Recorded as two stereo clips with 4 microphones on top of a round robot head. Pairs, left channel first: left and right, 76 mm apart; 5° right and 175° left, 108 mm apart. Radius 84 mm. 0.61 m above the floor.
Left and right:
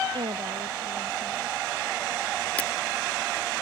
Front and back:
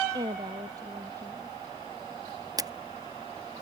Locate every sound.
0.1 s a woman speaking: 120° right
2.6 s a camera shutter: 150° left